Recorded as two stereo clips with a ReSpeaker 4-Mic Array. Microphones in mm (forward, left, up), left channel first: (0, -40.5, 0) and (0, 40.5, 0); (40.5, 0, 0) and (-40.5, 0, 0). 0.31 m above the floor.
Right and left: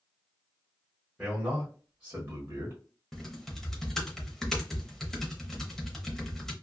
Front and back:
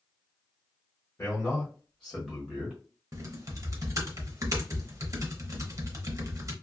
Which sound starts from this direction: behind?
Typing on a keyboard, at 3.1 s.